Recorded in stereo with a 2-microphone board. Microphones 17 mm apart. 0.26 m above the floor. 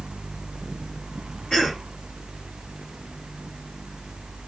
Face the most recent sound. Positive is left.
turn(degrees=60)  # may be behind; listen again after turning